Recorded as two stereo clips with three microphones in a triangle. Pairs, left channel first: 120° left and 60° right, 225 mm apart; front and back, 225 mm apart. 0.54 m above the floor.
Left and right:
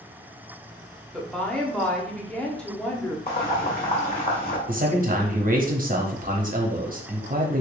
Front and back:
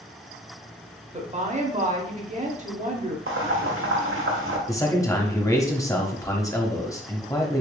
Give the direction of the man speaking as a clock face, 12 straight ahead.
2 o'clock.